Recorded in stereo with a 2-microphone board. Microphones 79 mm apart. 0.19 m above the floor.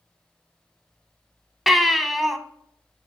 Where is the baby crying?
Centre (ahead or behind), 0.7 m.